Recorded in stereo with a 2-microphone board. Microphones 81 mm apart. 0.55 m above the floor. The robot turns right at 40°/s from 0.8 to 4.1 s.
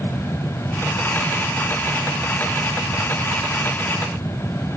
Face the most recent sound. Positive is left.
No sound to turn to.